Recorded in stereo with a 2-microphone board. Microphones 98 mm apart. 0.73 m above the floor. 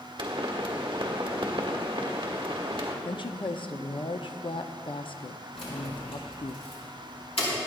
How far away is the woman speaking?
About 0.8 m.